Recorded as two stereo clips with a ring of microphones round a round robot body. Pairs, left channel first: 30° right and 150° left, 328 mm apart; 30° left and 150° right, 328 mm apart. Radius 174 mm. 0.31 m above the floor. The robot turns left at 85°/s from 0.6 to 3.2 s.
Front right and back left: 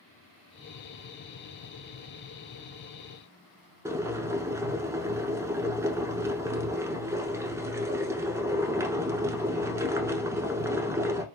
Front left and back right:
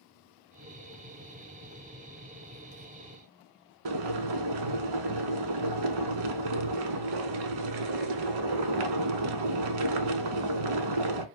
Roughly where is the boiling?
Behind right.